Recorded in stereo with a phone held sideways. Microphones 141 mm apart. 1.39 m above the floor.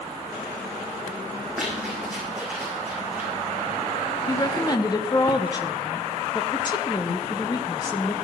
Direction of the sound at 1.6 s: 5° right (ahead or behind).